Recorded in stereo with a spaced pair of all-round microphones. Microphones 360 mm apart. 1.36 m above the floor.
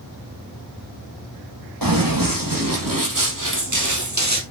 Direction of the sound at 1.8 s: 60° right (ahead or behind).